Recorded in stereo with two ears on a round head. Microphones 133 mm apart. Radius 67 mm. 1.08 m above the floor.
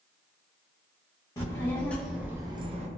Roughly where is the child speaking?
Left.